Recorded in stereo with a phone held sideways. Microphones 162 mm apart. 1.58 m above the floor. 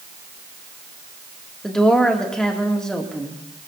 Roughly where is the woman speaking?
Centre.